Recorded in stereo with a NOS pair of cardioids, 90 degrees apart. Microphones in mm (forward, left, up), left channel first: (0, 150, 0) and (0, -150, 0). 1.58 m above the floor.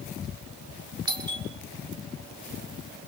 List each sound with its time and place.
1.1 s a doorbell: 15° right, 7 m